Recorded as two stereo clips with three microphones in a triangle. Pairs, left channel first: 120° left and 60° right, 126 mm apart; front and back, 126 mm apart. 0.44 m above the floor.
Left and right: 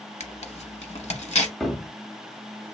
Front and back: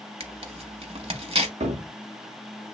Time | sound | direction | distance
0.2 | tearing paper | 145° left | 0.7 m
1.6 | a cupboard door | 150° right | 0.6 m